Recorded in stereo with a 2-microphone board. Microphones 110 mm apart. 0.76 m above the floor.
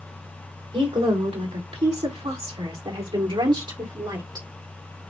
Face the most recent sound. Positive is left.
turn(degrees=-35)  # may be behind; listen again after turning